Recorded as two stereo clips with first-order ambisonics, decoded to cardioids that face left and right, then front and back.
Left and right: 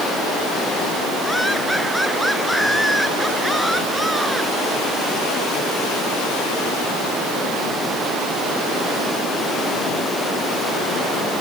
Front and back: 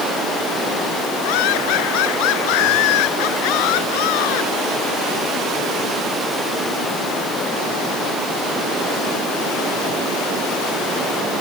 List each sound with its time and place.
1.2 s laughter: straight ahead; by 4.5 s 5° right